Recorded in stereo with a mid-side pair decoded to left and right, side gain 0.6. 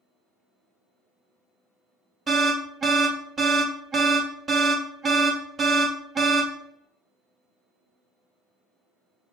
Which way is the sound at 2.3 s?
30° right.